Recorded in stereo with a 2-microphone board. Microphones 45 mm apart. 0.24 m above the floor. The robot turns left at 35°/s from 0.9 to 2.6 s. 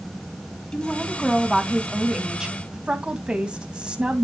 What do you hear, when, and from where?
0.7 s a woman speaking: 30° left, 1.8 m; by 4.2 s 30° right, 1.8 m